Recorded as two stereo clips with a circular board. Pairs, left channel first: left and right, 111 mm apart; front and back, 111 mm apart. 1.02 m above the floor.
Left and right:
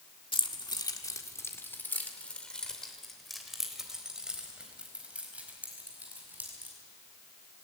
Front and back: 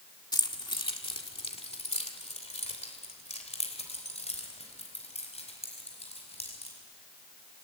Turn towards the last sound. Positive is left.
turn(degrees=-15)